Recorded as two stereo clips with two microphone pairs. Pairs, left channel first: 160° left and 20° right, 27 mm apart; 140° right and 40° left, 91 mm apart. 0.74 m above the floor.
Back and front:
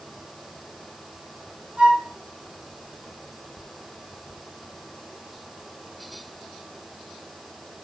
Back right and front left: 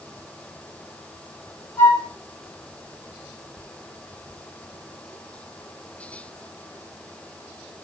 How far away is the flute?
About 4 m.